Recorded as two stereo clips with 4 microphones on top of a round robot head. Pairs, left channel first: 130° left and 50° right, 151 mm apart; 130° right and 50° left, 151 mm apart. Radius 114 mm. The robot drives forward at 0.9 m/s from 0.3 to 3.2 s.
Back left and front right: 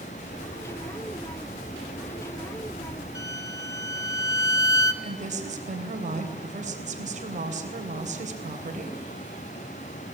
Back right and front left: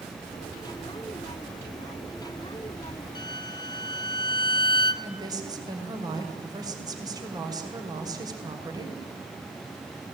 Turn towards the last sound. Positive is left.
turn(degrees=-15)